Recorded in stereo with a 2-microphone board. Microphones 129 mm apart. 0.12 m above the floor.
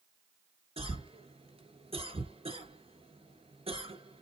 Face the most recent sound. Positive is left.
turn(degrees=-45)  # may be behind; listen again after turning